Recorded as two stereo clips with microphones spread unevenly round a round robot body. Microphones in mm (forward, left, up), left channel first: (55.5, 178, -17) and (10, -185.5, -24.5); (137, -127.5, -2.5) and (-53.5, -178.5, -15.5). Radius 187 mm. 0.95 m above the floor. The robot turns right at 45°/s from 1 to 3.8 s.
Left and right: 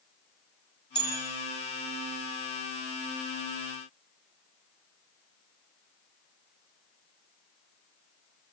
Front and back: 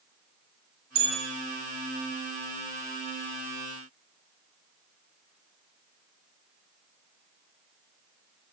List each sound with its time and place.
0.9 s a bell: 160° left, 6.5 m; by 1.2 s 170° left, 6.5 m